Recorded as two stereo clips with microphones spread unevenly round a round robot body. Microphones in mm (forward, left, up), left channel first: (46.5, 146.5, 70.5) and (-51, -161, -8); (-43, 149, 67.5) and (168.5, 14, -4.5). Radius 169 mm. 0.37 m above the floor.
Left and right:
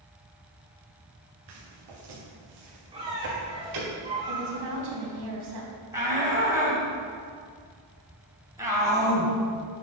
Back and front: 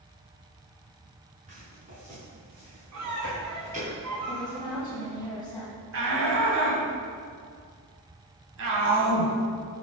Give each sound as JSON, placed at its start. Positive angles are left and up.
{"t": 1.5, "sound": "footsteps", "azimuth_deg": -100, "distance_m": 4.0}
{"t": 2.9, "sound": "a squeak", "azimuth_deg": -30, "distance_m": 3.5}
{"t": 4.3, "sound": "a woman speaking", "azimuth_deg": -130, "distance_m": 2.5}
{"t": 5.9, "sound": "a shout", "azimuth_deg": -35, "distance_m": 3.0}